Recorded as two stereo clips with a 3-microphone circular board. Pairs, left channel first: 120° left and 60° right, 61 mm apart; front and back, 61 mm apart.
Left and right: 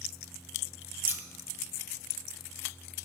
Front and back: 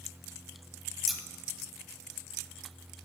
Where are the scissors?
90° right, 0.9 m.